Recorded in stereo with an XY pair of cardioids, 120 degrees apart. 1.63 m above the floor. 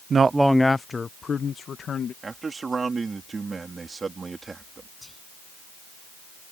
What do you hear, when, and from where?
0.1 s a man speaking: 40° right; by 2.1 s 40° left
2.2 s a man speaking: 25° right
5.0 s whispering: 5° left